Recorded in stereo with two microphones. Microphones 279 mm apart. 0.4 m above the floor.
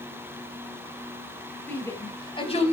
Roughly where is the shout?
Centre.